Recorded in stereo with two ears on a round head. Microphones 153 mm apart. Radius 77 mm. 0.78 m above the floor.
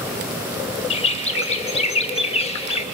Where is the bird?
35° left (ahead or behind), 0.7 m.